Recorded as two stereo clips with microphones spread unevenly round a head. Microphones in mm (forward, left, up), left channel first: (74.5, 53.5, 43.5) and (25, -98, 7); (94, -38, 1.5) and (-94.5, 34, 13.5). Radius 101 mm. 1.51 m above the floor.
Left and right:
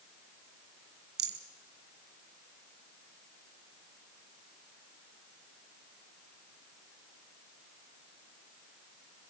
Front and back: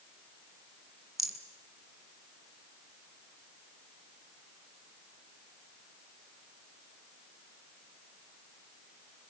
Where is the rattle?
115° right, 1.6 m.